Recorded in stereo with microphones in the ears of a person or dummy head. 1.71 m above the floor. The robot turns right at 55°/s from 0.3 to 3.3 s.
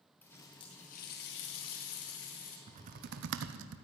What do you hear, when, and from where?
0.2 s a running tap: 5° left, 2 m; by 2.6 s 130° left, 2 m
2.7 s typing on a keyboard: 145° right, 0.9 m; by 3.8 s 110° right, 0.9 m